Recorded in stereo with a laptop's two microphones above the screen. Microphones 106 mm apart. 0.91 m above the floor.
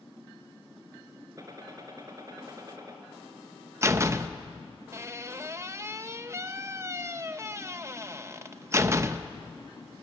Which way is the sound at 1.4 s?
35° right (ahead or behind).